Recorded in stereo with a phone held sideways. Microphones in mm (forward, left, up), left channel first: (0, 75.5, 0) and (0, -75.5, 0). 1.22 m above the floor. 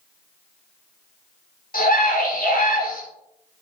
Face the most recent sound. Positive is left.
turn(degrees=80)